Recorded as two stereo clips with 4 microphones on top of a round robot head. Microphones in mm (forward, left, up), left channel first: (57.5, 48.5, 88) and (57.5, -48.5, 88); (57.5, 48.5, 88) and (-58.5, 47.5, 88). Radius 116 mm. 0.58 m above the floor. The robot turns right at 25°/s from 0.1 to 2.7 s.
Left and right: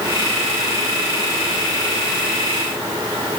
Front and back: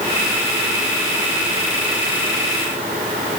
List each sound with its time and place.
Only background noise.